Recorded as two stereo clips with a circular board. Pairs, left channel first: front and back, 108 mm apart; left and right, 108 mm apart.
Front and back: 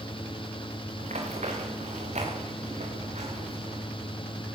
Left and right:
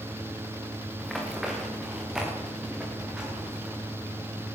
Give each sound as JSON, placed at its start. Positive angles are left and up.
{"t": 1.0, "sound": "running footsteps", "azimuth_deg": 180, "distance_m": 6.5}